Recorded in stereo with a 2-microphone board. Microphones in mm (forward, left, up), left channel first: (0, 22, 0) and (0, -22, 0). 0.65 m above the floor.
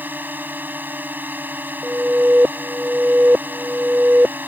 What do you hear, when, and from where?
0.0 s a drone: 45° right (ahead or behind)
1.8 s an alarm: 30° right (ahead or behind)